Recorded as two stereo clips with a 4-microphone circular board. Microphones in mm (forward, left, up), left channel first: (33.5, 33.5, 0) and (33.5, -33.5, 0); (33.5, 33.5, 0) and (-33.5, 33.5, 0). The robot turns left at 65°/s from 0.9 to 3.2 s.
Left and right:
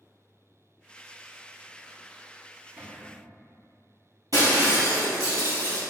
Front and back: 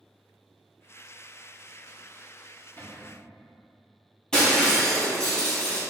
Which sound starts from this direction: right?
Breaking glass, at 4.3 s.